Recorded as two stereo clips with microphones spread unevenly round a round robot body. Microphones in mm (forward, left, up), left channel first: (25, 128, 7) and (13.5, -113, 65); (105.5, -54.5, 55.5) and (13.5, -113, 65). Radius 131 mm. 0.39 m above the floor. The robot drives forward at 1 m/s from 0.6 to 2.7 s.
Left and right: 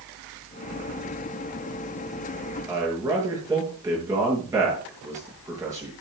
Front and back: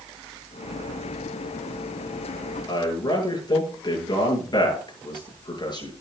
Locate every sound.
2.7 s a man speaking: 15° right, 8 m